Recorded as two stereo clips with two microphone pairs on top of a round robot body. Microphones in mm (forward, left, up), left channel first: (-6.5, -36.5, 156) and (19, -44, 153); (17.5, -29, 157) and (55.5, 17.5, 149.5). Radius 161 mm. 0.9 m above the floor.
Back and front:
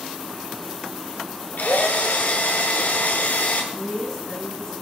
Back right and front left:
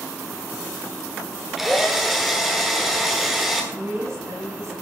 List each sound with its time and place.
1.6 s a drill: 140° left, 1.2 m
3.7 s a woman speaking: 90° left, 7 m